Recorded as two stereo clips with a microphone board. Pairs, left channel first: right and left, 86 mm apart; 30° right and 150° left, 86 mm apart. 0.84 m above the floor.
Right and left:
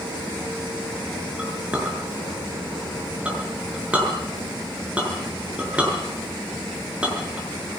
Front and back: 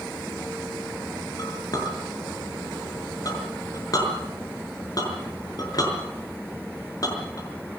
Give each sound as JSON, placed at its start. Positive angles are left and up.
{"t": 1.4, "sound": "a clink", "azimuth_deg": 15, "distance_m": 6.0}